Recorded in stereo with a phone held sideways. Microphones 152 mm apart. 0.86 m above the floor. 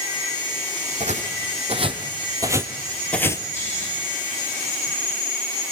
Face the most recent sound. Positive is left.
turn(degrees=15)  # may be behind; listen again after turning